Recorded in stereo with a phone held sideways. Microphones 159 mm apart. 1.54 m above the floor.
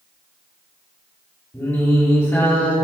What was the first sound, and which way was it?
Singing, 15° left (ahead or behind).